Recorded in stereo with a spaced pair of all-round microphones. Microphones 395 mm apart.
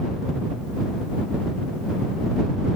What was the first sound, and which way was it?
Only background noise.